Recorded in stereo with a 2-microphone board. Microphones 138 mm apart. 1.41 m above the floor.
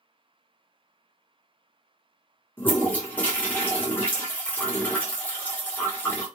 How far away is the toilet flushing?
About 1.0 m.